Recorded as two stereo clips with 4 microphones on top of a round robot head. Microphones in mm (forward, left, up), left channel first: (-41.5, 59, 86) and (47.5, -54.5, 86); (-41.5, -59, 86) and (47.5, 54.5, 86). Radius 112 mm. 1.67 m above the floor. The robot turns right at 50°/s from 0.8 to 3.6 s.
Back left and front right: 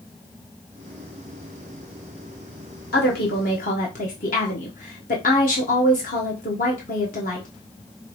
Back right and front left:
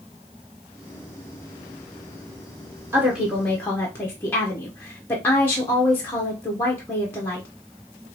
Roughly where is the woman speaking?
Behind left.